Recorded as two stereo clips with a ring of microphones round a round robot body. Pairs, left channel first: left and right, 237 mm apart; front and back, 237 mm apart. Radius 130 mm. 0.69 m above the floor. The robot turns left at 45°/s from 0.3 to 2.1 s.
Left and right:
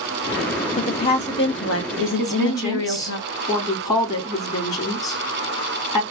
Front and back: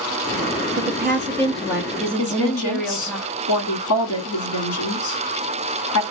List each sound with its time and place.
0.8 s a woman speaking: 145° left, 0.7 m; by 3.2 s 85° left, 0.7 m
2.2 s a woman speaking: 15° left, 1.3 m